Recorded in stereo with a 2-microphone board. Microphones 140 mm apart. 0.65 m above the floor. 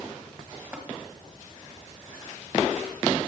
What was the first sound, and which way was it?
Tapping, 10° right (ahead or behind).